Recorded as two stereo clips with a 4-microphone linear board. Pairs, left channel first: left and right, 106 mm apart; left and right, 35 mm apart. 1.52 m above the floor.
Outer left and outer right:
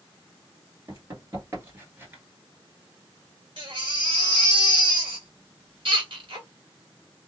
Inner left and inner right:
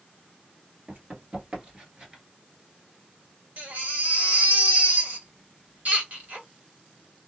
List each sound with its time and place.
0.9 s running footsteps: 35° right (ahead or behind), 1.8 m; by 2.2 s 20° right (ahead or behind), 1.7 m
3.6 s a baby crying: 55° right (ahead or behind), 1.7 m